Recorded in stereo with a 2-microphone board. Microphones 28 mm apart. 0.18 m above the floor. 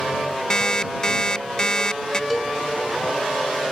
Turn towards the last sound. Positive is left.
turn(degrees=0)  # may be behind; listen again after turning